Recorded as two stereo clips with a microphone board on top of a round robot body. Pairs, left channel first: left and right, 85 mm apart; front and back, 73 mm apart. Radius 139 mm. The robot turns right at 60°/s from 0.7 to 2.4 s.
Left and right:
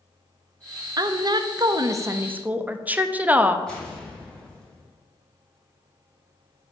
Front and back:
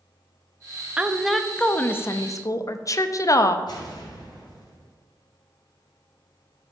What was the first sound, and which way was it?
A woman speaking, 110° right.